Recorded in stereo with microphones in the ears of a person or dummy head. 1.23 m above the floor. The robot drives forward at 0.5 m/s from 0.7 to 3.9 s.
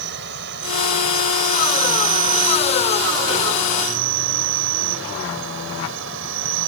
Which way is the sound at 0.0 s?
60° right (ahead or behind).